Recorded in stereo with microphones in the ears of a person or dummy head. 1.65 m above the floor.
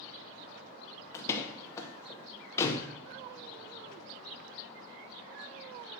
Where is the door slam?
15° left (ahead or behind), 0.8 m.